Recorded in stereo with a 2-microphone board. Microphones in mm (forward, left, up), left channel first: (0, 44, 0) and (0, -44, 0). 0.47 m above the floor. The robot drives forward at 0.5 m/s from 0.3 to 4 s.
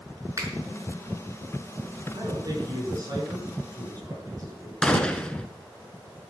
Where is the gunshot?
10° left (ahead or behind), 1.2 m.